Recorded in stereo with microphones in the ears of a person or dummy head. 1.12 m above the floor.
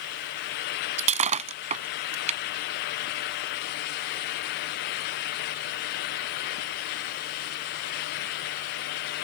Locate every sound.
1.0 s breaking glass: 35° right (ahead or behind)